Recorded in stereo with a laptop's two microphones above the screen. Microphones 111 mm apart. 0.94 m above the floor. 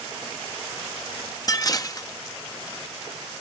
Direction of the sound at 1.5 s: 35° left (ahead or behind).